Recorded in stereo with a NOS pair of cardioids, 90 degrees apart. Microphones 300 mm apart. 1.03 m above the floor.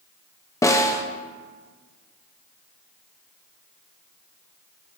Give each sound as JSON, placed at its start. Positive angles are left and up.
{"t": 0.6, "sound": "a snare drum", "azimuth_deg": 10, "distance_m": 0.9}